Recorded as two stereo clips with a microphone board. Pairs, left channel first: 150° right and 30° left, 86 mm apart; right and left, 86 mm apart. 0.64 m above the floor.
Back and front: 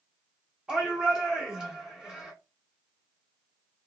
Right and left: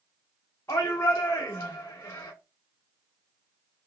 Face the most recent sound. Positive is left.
turn(degrees=-45)